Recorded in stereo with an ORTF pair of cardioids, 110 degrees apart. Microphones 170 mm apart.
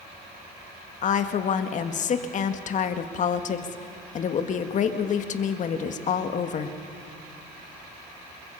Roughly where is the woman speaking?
Ahead left.